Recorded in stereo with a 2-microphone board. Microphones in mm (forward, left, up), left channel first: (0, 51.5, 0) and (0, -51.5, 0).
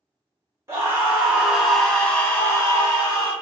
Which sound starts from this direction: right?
A scream, at 0.7 s.